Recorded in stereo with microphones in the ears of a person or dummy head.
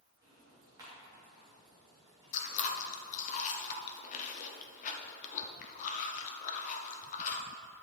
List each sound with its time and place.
0.2 s ticking: 20° right (ahead or behind), 3 m
2.3 s chewing: 45° left (ahead or behind), 0.7 m